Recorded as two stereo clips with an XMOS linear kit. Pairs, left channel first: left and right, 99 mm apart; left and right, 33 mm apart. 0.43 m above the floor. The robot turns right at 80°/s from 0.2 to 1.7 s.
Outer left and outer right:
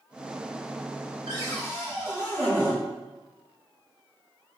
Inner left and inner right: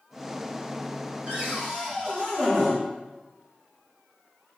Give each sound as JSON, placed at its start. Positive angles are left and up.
{"t": 1.3, "sound": "a cupboard door", "azimuth_deg": -55, "distance_m": 1.7}